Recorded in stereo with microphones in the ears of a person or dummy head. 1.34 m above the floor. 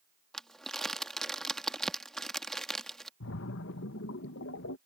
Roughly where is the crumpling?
Centre.